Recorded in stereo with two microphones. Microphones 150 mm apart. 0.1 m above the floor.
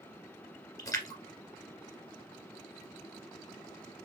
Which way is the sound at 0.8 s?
25° left (ahead or behind).